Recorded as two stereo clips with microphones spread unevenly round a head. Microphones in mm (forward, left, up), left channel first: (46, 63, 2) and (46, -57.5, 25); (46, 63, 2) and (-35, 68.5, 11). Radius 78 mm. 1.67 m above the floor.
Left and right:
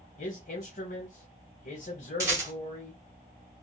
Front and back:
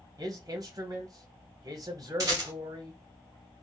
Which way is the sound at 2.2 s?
145° right.